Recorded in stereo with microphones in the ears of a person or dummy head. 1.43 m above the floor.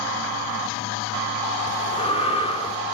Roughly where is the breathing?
Left.